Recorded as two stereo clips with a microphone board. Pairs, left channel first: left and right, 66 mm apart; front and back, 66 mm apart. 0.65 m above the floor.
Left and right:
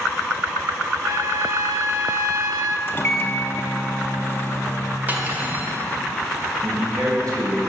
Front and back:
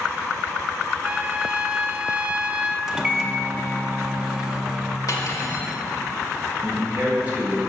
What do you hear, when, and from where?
1.0 s a trumpet: 110° right, 0.6 m
2.9 s a microwave: 105° left, 0.7 m
5.1 s cutlery clinking: 30° right, 1.7 m
6.6 s a man speaking: 115° right, 3.5 m